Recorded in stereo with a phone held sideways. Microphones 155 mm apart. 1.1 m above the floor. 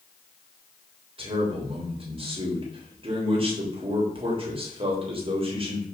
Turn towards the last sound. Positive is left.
turn(degrees=-35)  # may be behind; listen again after turning